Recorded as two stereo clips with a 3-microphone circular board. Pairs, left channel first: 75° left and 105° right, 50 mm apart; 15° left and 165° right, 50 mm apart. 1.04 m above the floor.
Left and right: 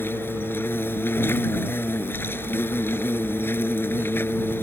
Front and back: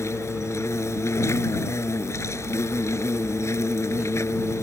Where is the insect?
35° left.